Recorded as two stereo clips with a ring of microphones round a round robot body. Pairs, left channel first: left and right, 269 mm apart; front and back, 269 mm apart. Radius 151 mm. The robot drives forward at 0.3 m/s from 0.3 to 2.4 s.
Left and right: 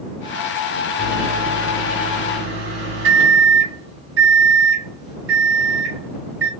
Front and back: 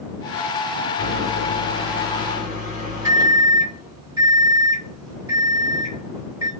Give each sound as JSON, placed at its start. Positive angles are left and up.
{"t": 1.0, "sound": "a microwave", "azimuth_deg": -85, "distance_m": 1.6}